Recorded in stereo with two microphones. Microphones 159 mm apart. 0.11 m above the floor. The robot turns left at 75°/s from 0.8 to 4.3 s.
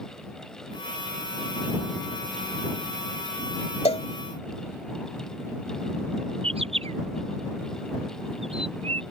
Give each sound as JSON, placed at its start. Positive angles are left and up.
{"t": 3.9, "sound": "a cowbell", "side_deg": 45}
{"t": 6.4, "sound": "a bird", "side_deg": -40}